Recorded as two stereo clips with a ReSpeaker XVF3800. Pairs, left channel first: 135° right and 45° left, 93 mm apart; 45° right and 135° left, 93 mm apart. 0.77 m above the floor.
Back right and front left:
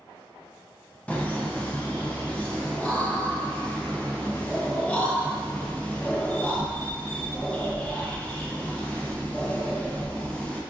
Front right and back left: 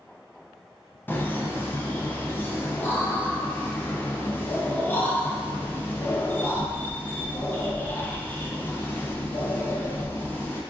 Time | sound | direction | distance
1.1 | laughter | 80° right | 0.5 m